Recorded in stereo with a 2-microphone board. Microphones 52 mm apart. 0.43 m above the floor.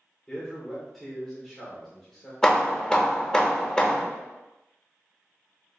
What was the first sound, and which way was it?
A man speaking, 5° left (ahead or behind).